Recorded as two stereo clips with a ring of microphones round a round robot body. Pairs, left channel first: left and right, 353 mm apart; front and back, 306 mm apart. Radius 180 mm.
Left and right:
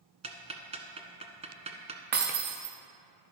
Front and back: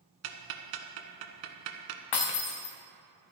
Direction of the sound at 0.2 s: 165° right.